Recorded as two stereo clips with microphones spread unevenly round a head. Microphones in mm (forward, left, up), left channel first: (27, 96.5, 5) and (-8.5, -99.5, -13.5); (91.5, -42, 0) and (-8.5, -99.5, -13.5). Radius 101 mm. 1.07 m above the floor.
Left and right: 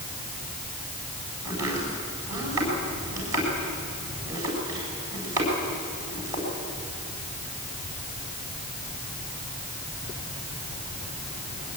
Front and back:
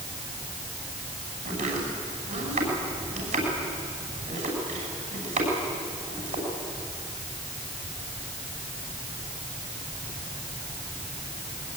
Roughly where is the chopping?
Behind.